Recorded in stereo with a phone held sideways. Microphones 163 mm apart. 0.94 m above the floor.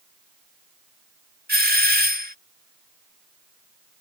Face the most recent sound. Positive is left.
turn(degrees=-70)  # may be behind; listen again after turning